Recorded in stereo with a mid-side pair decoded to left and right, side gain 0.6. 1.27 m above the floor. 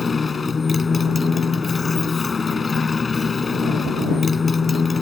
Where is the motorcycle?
20° left.